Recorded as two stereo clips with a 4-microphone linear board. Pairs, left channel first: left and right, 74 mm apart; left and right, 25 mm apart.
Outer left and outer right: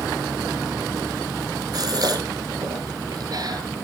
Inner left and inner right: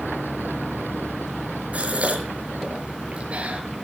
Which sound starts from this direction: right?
A gasp, at 1.7 s.